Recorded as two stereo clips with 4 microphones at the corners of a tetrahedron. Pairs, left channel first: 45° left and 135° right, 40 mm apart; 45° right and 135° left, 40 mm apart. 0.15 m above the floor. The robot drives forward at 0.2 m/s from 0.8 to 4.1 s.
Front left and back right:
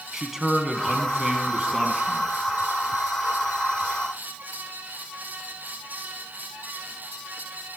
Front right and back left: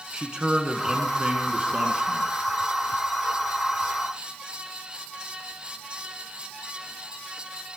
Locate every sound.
0.1 s a man speaking: 155° left, 1.2 m; by 2.3 s 165° left, 1.4 m